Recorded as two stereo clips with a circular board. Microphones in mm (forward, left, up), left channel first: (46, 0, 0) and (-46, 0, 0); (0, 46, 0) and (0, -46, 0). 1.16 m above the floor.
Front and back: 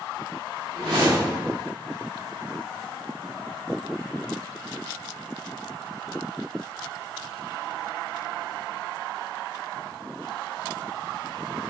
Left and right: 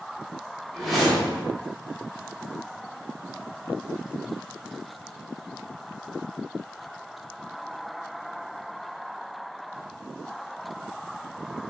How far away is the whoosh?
About 1.8 m.